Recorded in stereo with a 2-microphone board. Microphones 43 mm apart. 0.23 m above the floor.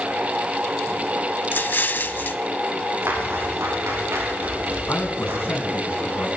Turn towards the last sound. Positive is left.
turn(degrees=50)  # may be behind; listen again after turning